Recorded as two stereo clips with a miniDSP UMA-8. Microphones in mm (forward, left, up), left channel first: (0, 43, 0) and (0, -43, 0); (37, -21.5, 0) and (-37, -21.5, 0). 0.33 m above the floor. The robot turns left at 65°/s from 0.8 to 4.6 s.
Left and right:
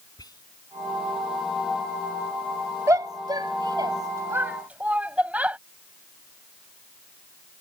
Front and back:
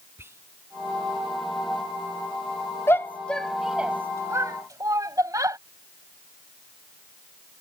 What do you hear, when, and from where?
0.2 s whispering: 125° left
2.9 s a shout: 45° right; by 5.6 s 160° right